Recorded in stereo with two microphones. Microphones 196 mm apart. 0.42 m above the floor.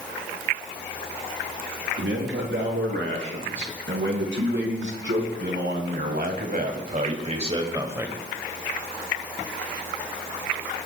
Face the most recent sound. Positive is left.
turn(degrees=-5)  # may be behind; listen again after turning